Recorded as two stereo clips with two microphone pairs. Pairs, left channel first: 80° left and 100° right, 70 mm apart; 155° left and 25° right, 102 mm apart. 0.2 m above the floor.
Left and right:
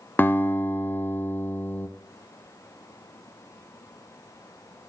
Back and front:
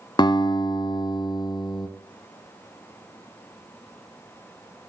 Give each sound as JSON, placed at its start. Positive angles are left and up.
{"t": 0.2, "sound": "a guitar", "azimuth_deg": 140, "distance_m": 0.5}